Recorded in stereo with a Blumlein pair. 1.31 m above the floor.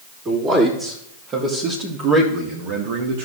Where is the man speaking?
20° right, 3 m; by 3.3 s 50° right, 1.5 m.